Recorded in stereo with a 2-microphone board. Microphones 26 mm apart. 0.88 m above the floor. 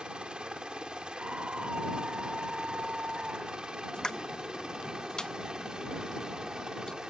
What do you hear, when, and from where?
0.0 s a helicopter: 35° right (ahead or behind); by 7.1 s 30° right (ahead or behind)
1.2 s a scream: 50° right (ahead or behind)
3.9 s a pop: 25° left (ahead or behind)